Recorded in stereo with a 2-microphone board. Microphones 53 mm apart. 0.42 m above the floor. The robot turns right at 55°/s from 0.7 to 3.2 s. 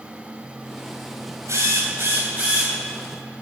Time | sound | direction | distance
1.5 | a drill | 90° right | 3 m